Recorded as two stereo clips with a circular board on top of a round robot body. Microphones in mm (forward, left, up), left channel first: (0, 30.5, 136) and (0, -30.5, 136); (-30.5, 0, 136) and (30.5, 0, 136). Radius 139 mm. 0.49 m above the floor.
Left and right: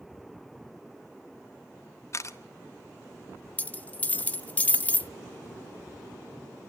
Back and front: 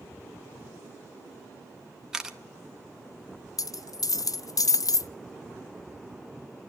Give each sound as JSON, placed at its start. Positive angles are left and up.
{"t": 2.1, "sound": "a camera shutter", "azimuth_deg": 75, "distance_m": 1.6}
{"t": 3.6, "sound": "a dropped coin", "azimuth_deg": 155, "distance_m": 0.6}